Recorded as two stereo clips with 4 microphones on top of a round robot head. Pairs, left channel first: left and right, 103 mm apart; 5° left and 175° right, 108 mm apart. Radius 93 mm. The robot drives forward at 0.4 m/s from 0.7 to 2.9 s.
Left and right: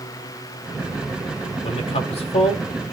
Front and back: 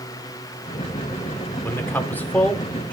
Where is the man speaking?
75° left, 3 m; by 2.9 s 85° left, 3 m.